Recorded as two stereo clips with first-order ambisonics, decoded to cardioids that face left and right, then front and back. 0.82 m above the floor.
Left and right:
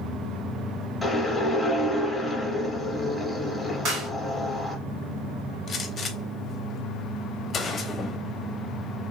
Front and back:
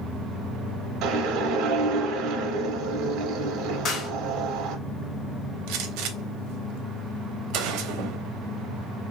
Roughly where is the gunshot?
Behind.